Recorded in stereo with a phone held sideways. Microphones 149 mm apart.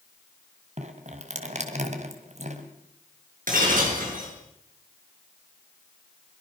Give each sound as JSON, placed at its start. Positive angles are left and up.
{"t": 0.8, "sound": "dripping", "side_deg": -50, "distance_m": 2.5}
{"t": 3.5, "sound": "breaking glass", "side_deg": -65, "distance_m": 6.5}